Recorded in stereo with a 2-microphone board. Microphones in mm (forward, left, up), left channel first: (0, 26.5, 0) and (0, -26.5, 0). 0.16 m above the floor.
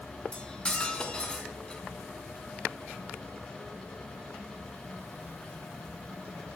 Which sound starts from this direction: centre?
Cutlery clinking, at 0.3 s.